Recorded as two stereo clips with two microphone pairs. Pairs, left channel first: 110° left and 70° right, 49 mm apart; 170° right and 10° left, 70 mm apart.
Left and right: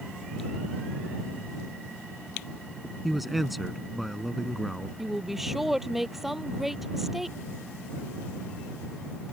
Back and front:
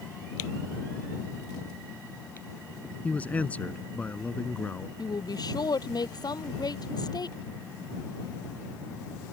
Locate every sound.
3.0 s a man speaking: 155° right
5.0 s a woman speaking: 155° right